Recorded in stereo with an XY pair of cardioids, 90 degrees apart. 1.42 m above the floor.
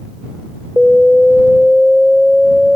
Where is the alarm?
15° left.